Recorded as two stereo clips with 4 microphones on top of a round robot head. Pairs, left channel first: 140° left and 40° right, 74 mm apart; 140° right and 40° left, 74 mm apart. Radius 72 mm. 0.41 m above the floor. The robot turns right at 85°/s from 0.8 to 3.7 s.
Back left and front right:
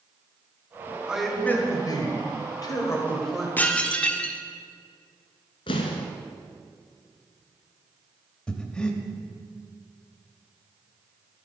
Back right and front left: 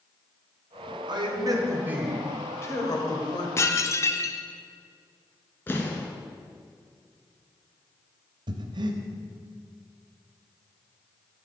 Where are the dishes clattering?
165° right, 0.8 m; by 4.4 s 155° right, 0.8 m.